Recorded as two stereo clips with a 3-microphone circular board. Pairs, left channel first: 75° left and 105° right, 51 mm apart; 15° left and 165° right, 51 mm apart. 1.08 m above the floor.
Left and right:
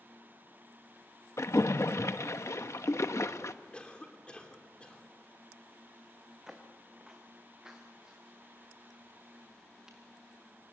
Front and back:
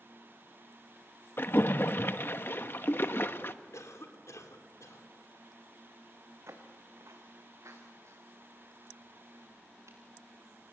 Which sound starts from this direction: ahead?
A cough, at 3.7 s.